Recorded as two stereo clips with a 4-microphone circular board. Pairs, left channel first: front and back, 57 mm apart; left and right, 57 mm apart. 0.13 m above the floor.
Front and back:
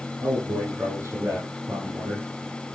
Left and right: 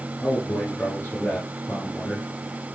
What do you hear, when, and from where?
0.2 s a man speaking: 140° left, 8 m